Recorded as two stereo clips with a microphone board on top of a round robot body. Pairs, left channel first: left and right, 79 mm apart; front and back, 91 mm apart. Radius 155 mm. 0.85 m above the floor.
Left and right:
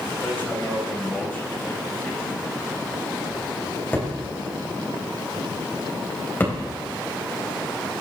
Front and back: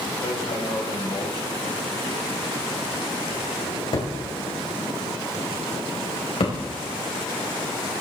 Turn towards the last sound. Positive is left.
turn(degrees=25)